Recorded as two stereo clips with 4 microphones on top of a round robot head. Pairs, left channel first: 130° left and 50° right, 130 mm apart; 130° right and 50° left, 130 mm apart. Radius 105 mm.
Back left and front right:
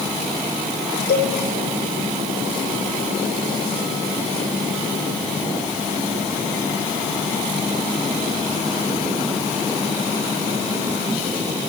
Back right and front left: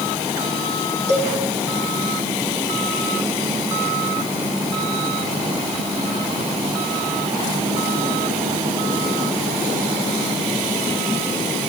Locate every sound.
1.1 s a cowbell: 90° left, 5 m